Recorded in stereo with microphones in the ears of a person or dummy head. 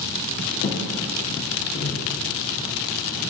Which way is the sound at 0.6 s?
40° left (ahead or behind).